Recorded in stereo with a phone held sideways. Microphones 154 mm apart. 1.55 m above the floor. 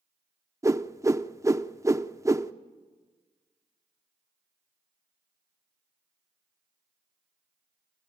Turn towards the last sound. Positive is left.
turn(degrees=-20)  # may be behind; listen again after turning